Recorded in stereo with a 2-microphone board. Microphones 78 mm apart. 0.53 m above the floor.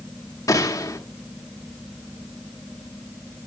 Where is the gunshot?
45° left (ahead or behind), 1.0 m.